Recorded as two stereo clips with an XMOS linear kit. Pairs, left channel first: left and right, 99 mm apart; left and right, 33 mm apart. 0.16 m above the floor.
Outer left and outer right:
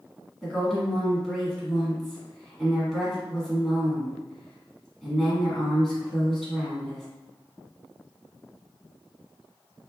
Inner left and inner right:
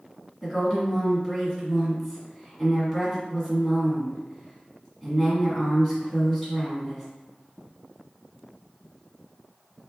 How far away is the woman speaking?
About 1.4 m.